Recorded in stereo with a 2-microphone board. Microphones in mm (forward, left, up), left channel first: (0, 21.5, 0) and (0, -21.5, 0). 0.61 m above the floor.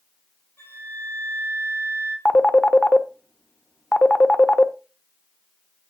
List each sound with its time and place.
0.6 s a flute: 70° left (ahead or behind), 3.5 m
2.2 s a phone ringing: 25° left (ahead or behind), 0.6 m